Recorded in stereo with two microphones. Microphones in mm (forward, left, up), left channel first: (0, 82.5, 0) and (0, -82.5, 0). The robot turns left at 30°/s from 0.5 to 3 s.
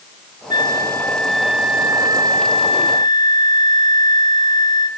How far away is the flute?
About 1.5 m.